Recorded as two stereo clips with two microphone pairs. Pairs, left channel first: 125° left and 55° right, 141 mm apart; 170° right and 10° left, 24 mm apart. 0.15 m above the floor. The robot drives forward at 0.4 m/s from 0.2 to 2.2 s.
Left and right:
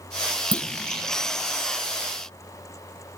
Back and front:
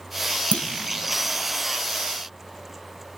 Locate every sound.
0.5 s a clunk: 155° right, 2 m